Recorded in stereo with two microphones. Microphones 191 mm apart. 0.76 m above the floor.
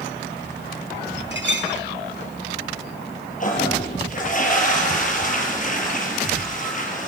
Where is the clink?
70° right (ahead or behind), 5 m.